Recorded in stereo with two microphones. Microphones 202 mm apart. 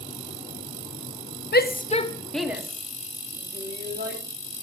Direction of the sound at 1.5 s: 55° left (ahead or behind).